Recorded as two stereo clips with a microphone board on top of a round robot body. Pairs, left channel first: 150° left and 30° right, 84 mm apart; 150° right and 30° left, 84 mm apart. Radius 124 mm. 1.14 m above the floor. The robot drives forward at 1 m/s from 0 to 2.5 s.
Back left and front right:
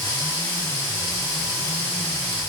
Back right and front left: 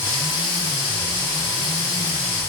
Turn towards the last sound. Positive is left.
No sound to turn to.